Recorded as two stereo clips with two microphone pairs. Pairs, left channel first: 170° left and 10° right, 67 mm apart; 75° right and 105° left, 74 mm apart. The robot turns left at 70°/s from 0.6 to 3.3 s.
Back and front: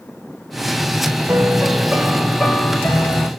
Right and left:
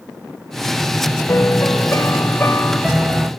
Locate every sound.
1.3 s a piano: 50° right, 1.0 m; by 3.3 s 170° left, 1.0 m